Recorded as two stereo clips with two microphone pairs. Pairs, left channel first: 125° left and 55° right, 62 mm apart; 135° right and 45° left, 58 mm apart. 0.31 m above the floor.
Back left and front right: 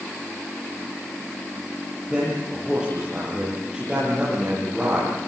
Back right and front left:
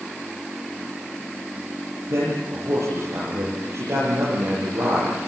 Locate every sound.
2.1 s a man speaking: 25° left, 9 m